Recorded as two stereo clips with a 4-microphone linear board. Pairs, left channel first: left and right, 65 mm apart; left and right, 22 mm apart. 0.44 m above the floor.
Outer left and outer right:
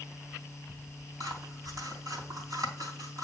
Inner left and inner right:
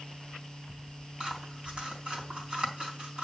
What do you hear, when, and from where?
1.2 s scissors: 70° right (ahead or behind), 3.5 m